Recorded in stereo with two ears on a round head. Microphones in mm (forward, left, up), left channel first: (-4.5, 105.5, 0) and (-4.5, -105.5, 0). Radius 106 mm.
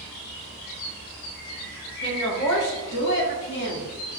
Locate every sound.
2.0 s a woman speaking: 50° left (ahead or behind), 1.7 m; by 3.9 s 45° left (ahead or behind), 3 m